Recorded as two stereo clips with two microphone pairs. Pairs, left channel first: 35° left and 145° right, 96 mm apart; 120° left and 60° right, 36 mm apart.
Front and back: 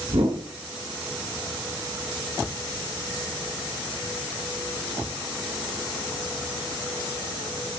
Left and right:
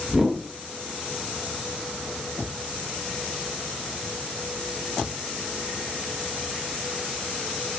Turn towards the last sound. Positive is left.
turn(degrees=-135)